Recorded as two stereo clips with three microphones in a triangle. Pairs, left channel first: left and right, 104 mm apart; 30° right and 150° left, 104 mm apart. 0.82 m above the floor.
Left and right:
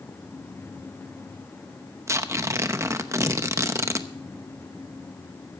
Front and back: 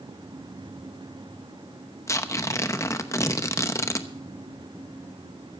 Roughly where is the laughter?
No laughter in this recording.